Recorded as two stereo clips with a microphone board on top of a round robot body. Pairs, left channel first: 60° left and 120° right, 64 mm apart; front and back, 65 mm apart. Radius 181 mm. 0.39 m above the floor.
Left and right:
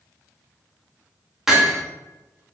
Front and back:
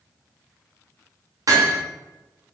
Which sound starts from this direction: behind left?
Hammering, at 1.5 s.